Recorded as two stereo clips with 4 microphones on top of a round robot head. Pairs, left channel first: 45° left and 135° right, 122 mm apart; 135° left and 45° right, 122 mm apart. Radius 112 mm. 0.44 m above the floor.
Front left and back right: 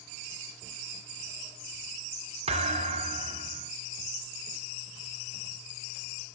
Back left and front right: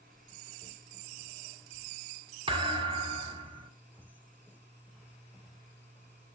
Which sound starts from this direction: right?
A thud, at 2.5 s.